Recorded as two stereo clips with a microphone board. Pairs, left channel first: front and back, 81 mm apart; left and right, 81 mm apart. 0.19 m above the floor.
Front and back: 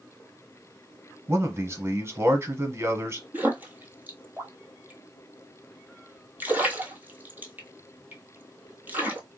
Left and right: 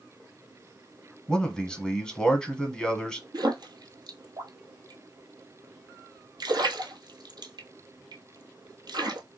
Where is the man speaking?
165° left, 1.2 m.